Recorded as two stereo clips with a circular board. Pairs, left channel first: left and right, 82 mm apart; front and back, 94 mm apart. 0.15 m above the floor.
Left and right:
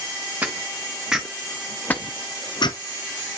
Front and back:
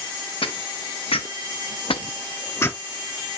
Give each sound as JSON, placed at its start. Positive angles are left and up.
{"t": 0.4, "sound": "footsteps", "azimuth_deg": -20, "distance_m": 1.3}